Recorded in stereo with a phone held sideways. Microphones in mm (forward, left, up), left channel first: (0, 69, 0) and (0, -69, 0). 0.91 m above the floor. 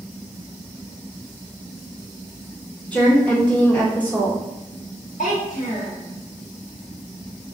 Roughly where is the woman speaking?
Centre.